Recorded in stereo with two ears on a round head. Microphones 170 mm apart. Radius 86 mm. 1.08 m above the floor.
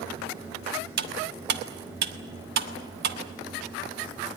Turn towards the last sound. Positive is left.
turn(degrees=-60)  # may be behind; listen again after turning